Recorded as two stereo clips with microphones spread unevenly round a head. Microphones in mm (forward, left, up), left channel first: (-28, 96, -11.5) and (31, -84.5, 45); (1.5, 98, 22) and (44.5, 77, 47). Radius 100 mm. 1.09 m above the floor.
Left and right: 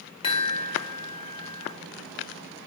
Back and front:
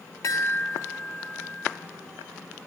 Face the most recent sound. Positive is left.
turn(degrees=175)